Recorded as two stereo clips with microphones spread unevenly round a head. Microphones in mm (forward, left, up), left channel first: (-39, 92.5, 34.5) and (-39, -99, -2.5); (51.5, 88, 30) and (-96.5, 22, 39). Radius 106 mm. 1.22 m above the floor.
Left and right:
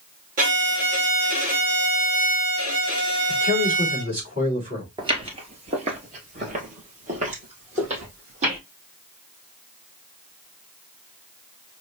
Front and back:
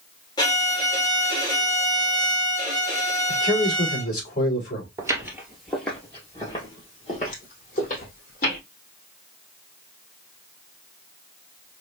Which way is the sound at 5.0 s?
145° right.